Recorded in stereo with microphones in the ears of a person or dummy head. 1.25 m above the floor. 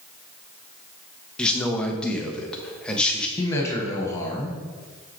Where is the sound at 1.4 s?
10° left (ahead or behind), 1.0 m.